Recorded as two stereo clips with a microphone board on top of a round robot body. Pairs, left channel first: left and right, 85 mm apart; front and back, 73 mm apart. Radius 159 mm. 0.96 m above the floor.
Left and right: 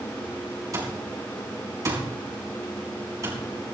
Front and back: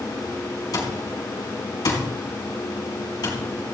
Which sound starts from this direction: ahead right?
An alarm clock, at 0.7 s.